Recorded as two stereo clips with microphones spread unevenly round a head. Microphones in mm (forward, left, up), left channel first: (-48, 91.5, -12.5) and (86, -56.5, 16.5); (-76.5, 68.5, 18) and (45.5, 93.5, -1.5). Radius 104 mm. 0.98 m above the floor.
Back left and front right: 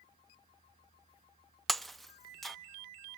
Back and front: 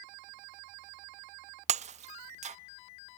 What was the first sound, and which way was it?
Breaking glass, 40° left.